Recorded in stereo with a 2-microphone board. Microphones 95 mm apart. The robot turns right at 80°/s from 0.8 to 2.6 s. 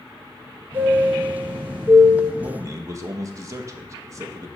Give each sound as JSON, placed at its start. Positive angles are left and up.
{"t": 0.7, "sound": "a chime", "azimuth_deg": -155, "distance_m": 2.5}
{"t": 2.4, "sound": "a man speaking", "side_deg": -40, "distance_m": 0.9}